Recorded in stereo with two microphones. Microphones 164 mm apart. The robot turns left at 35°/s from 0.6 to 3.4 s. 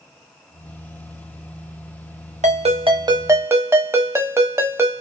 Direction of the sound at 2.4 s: 130° right.